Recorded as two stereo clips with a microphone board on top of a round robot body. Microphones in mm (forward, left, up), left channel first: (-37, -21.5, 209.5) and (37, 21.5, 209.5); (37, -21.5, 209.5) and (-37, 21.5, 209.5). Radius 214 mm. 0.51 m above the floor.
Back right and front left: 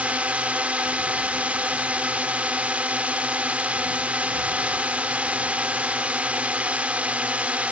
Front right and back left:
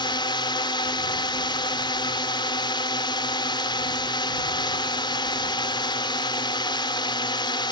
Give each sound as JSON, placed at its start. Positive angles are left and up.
{"t": 0.0, "sound": "a drone", "azimuth_deg": -45}